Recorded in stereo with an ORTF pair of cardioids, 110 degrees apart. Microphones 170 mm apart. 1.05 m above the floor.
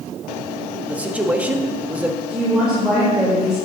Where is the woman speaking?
5° right, 3.5 m.